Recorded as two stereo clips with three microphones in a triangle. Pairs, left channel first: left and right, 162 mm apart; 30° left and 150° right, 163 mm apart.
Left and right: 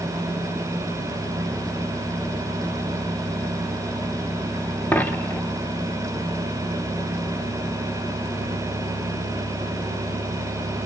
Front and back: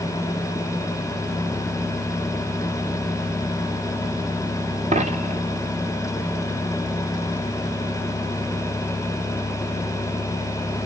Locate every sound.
4.9 s a dropped coin: 170° left, 0.8 m